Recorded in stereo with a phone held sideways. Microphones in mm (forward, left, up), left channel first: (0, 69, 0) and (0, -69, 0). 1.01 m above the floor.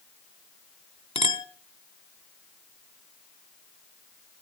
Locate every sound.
1.1 s a clink: 40° left (ahead or behind), 1.9 m